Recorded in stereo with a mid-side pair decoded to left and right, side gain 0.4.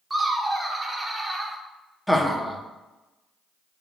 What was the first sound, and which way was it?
Laughter, 25° right.